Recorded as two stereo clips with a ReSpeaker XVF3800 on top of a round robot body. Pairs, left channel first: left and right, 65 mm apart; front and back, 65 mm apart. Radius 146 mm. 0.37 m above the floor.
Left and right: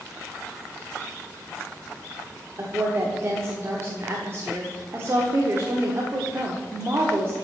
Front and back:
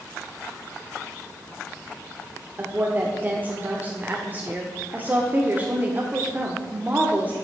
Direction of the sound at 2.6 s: 125° right.